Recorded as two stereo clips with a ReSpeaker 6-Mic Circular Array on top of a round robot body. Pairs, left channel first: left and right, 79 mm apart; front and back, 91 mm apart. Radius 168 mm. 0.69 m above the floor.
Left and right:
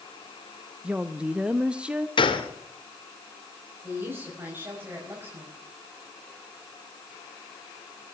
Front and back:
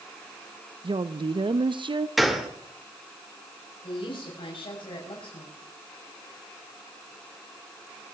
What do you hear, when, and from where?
0.8 s a woman speaking: 165° right, 0.8 m
2.2 s a gunshot: 90° left, 2 m
3.8 s a woman speaking: 25° right, 5.5 m